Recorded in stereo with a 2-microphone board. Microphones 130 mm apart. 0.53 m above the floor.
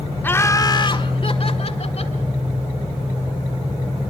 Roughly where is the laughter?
Centre.